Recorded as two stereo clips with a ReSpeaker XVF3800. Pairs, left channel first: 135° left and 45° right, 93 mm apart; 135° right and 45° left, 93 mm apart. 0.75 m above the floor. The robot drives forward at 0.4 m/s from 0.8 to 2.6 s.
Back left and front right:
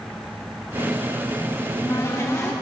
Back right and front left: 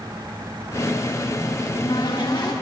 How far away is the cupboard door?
About 1.4 m.